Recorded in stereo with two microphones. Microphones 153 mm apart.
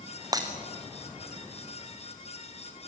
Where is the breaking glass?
25° right (ahead or behind), 3 m.